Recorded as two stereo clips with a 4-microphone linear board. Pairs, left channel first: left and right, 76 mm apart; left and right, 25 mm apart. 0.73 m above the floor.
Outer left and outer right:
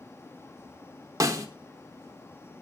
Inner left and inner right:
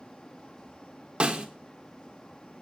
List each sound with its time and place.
1.2 s a snare drum: 45° right (ahead or behind), 1.6 m